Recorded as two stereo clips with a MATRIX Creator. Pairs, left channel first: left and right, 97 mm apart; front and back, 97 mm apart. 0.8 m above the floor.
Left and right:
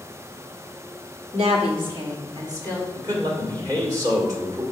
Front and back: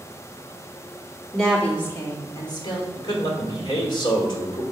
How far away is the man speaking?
About 2 m.